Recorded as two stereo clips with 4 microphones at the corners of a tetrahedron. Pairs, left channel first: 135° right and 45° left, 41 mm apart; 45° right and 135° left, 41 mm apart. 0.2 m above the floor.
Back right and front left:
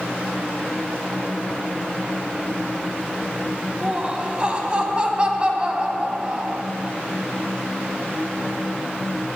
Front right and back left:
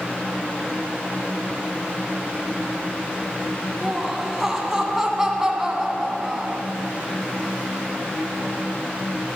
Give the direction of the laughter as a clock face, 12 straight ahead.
10 o'clock.